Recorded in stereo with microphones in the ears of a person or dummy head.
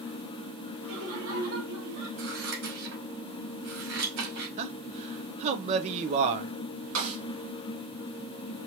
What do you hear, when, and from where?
0.8 s laughter: 75° right (ahead or behind), 2.0 m; by 2.1 s 80° right, 2 m
2.2 s scissors: 65° right (ahead or behind), 2 m
4.6 s a man speaking: 45° right (ahead or behind), 0.7 m
7.0 s a snare drum: 85° right, 2.5 m